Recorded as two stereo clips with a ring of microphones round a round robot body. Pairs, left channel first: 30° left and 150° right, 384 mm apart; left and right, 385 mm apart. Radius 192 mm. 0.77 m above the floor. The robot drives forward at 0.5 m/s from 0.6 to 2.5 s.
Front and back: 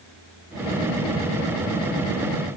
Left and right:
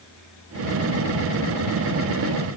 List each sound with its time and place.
Only background noise.